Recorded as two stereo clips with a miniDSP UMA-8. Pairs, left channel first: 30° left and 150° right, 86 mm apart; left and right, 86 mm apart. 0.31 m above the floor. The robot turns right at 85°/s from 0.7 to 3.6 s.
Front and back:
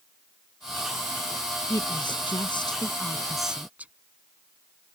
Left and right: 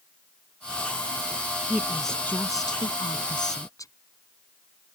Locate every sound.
1.7 s a woman speaking: 25° right; by 3.9 s 135° left